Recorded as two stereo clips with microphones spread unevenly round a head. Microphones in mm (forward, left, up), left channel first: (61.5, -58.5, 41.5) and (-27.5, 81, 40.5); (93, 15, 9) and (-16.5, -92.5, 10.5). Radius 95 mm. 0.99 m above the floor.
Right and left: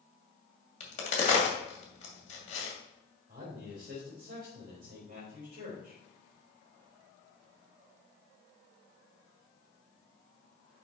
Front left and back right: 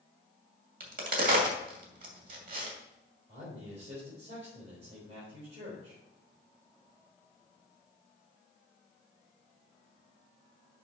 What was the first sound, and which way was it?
A crack, 110° right.